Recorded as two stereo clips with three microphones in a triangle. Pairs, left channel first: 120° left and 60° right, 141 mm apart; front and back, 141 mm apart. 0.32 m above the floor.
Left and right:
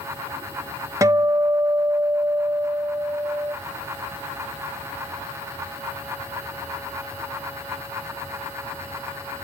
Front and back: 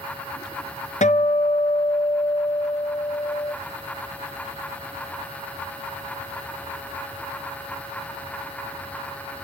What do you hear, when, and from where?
1.0 s a guitar: 5° left, 0.6 m